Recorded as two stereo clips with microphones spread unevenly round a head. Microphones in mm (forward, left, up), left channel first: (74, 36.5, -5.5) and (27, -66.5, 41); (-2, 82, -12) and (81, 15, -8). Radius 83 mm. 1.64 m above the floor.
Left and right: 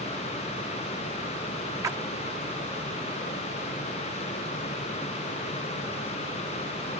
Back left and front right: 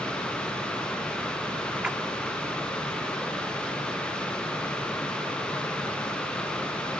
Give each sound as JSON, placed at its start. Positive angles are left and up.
{"t": 1.8, "sound": "a splash", "azimuth_deg": -115}